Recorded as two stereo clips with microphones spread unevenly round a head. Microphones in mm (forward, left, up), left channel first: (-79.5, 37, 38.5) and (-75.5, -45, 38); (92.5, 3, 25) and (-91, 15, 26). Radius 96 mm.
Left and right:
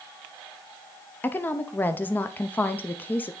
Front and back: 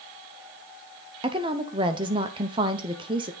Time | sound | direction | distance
1.2 | a woman speaking | 135° left | 0.5 m